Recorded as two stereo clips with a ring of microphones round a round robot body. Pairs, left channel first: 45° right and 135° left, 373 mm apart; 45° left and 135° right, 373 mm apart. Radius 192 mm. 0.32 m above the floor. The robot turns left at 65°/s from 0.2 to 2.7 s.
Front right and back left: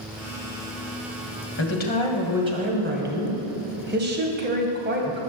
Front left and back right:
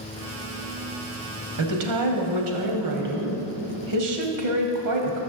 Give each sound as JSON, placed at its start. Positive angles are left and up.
{"t": 1.6, "sound": "a woman speaking", "azimuth_deg": -95, "distance_m": 2.0}